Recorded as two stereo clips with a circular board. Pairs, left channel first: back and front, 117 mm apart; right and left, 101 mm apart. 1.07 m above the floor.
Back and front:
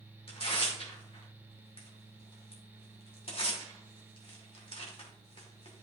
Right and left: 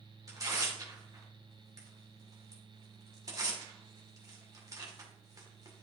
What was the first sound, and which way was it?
Tearing paper, 145° left.